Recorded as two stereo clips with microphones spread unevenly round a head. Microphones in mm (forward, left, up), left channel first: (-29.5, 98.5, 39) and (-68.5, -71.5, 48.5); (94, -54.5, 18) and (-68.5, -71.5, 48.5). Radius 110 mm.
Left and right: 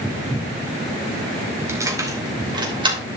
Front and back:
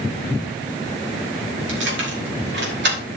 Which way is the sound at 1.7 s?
175° right.